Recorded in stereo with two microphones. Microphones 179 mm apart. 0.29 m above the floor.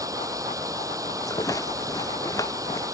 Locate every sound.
0.0 s running water: 20° right (ahead or behind)
1.2 s a rattle: 20° left (ahead or behind)